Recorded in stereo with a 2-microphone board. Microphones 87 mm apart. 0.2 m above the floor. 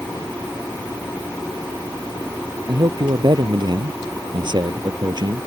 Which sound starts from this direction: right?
A man speaking, at 2.7 s.